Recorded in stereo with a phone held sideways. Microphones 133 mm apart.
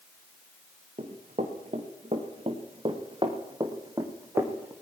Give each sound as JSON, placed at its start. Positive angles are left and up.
{"t": 1.0, "sound": "running footsteps", "side_deg": -65, "distance_m": 3.5}